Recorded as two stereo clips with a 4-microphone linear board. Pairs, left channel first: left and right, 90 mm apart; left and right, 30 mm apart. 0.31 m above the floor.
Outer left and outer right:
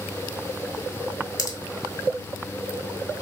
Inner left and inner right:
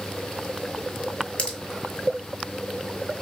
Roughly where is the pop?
Left.